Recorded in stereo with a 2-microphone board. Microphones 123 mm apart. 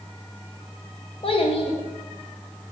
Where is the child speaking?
45° left (ahead or behind), 0.5 m.